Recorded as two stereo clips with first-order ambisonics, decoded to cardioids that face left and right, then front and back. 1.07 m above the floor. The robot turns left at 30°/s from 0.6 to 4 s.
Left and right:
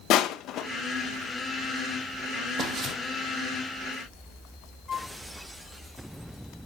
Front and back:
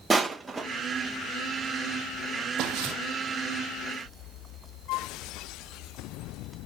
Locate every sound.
0.1 s crushing: 100° left, 0.7 m
2.6 s footsteps: 150° right, 2 m; by 2.9 s 160° right, 2 m
4.9 s a flute: 15° left, 0.9 m